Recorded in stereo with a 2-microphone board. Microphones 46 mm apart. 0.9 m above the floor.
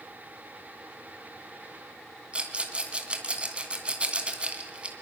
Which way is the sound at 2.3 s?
25° right (ahead or behind).